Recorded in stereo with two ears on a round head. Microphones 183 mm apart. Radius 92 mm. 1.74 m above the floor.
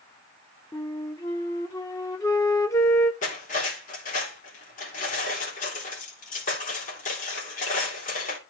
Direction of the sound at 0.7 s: 15° left (ahead or behind).